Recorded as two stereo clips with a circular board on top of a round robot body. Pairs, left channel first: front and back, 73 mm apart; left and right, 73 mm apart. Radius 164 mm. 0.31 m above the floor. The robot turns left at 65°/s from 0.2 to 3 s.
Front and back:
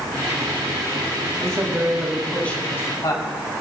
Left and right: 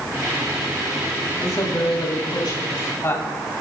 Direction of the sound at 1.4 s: 140° left.